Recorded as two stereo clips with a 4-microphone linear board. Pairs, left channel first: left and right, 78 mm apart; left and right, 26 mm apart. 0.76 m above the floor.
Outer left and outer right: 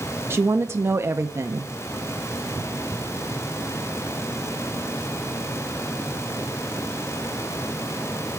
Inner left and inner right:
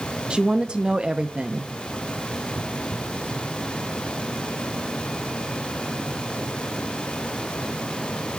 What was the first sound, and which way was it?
A woman speaking, 35° right (ahead or behind).